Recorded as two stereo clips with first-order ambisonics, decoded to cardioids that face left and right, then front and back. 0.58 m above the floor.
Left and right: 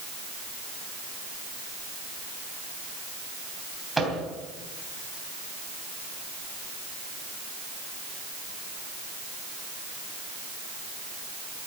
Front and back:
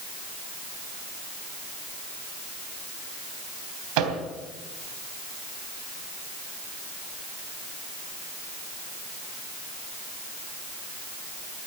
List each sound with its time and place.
4.0 s a microwave: 175° right, 3 m